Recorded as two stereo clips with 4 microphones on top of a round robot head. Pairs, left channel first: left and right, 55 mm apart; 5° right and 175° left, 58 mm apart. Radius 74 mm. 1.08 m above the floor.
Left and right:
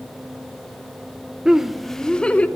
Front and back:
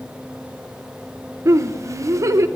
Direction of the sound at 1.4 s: 165° right.